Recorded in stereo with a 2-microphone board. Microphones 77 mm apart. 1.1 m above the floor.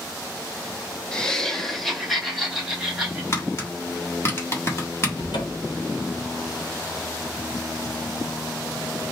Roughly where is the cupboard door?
Left.